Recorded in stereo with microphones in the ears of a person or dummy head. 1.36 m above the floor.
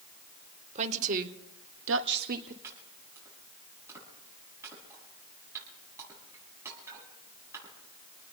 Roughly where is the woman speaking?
Right.